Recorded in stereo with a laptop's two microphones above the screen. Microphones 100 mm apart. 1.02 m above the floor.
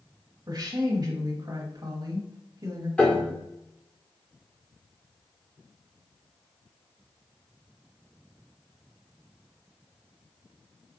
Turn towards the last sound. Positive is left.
turn(degrees=10)  # may be behind; listen again after turning